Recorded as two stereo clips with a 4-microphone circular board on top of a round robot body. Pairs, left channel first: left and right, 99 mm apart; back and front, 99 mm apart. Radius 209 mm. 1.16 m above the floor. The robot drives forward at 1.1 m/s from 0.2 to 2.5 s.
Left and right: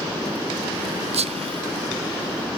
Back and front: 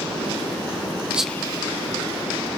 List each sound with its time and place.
1.1 s whispering: 75° right, 0.5 m; by 1.9 s 150° right, 0.9 m